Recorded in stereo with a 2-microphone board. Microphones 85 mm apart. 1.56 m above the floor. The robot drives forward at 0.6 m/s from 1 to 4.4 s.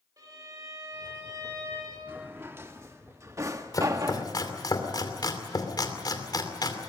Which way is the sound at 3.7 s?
40° left (ahead or behind).